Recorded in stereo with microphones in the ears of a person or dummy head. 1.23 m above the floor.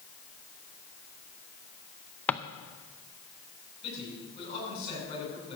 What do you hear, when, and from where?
2.3 s a drawer: 10° left (ahead or behind), 0.5 m
3.8 s a man speaking: 25° left (ahead or behind), 8 m